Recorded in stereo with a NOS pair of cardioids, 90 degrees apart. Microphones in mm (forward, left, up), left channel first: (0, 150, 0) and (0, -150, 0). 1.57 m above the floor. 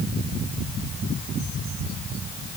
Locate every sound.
Only background noise.